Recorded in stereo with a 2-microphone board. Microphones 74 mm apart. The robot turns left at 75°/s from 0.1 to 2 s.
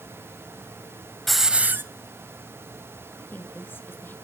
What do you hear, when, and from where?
1.3 s a hiss: 5° left, 1.0 m; by 1.8 s 40° right, 1.0 m
3.2 s a woman speaking: 25° left (ahead or behind), 1.5 m